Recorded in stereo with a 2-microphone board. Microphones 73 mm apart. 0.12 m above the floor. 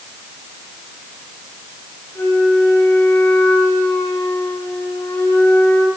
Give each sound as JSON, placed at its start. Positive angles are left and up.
{"t": 2.1, "sound": "a flute", "side_deg": 40, "distance_m": 6.5}